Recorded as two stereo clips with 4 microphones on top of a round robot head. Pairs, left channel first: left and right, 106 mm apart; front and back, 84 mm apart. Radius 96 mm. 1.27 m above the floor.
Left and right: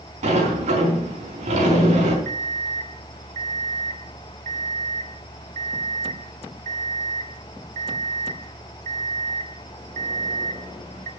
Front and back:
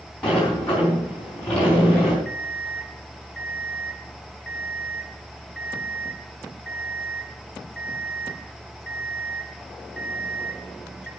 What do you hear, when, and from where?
0.2 s a sliding door: 85° right, 5 m
2.2 s an alarm clock: 90° right, 1.5 m